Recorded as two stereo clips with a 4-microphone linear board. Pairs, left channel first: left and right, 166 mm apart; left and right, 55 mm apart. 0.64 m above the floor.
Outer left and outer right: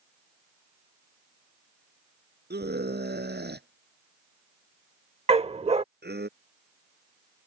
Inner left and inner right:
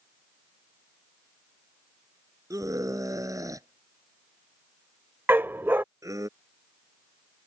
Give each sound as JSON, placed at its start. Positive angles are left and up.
{"t": 2.5, "sound": "a scream", "side_deg": -80}
{"t": 5.3, "sound": "a dog barking", "side_deg": -40}